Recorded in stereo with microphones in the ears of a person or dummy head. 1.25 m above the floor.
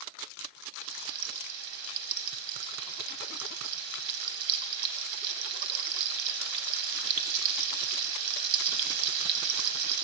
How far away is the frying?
About 0.7 m.